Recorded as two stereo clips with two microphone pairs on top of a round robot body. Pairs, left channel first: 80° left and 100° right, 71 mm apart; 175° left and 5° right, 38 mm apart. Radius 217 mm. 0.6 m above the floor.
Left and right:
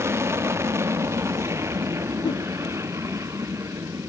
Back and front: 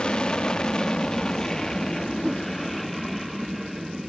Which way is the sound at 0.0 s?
130° right.